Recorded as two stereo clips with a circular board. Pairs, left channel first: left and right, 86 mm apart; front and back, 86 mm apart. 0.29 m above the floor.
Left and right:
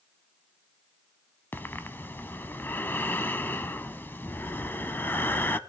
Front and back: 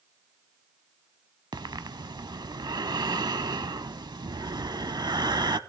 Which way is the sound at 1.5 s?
155° left.